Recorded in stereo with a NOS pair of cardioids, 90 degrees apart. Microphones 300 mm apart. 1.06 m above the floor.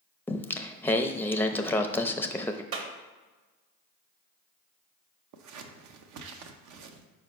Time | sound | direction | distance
0.3 | singing | 5° left | 0.5 m
2.7 | a clap | 45° right | 1.3 m
5.3 | scissors | 65° right | 0.8 m